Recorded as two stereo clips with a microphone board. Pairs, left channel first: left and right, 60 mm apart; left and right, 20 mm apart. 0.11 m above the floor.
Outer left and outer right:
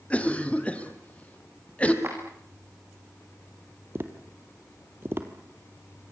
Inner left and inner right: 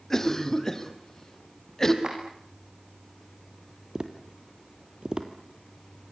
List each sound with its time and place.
0.1 s a cough: 20° left (ahead or behind), 3.5 m
2.0 s a clap: 40° right (ahead or behind), 7.5 m
4.0 s tapping: 35° right (ahead or behind), 2.5 m